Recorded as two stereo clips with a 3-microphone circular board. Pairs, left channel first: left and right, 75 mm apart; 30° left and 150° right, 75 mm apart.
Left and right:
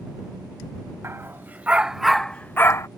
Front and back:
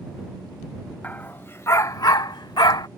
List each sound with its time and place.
1.0 s a dog barking: 40° right; by 2.9 s 45° left